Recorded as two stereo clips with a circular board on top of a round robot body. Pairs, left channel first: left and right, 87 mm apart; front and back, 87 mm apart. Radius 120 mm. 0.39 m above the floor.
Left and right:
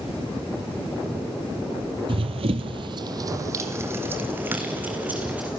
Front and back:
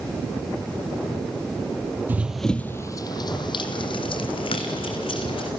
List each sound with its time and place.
2.1 s running footsteps: 110° right, 0.6 m; by 5.5 s 15° right, 2 m